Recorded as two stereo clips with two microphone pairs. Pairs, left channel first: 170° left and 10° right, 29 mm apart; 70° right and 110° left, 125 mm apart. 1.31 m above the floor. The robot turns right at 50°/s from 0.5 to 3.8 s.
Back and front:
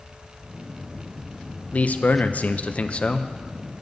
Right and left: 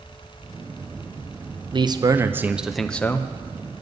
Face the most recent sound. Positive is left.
turn(degrees=-105)